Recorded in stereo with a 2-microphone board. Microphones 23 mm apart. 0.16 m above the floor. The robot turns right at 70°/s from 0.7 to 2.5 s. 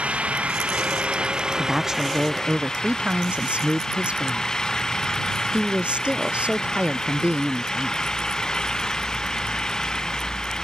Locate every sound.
0.0 s an engine running: 95° right; by 10.7 s 30° left
1.6 s a woman speaking: straight behind; by 8.1 s 115° right